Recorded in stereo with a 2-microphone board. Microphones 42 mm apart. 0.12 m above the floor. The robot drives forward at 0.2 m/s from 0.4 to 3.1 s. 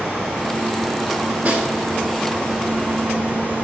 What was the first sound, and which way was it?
A snare drum, 30° right (ahead or behind).